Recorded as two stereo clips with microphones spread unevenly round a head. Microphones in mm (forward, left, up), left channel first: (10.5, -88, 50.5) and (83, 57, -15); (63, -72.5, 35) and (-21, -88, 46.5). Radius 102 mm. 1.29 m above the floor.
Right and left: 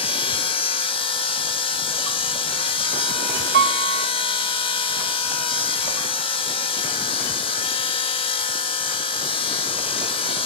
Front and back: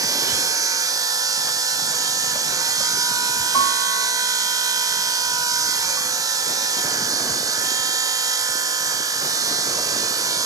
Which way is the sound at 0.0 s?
145° right.